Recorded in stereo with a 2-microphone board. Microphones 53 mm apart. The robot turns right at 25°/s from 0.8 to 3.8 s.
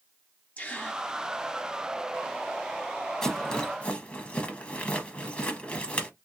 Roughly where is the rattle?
Centre.